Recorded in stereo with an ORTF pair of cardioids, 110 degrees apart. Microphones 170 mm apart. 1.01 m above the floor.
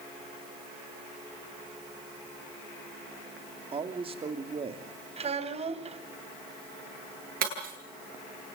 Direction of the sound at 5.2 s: 35° right.